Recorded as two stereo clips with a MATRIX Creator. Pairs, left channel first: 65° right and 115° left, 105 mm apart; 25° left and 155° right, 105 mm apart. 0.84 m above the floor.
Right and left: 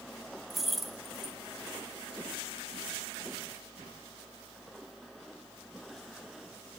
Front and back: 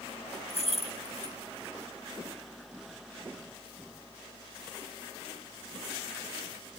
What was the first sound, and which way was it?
Keys jangling, 25° left.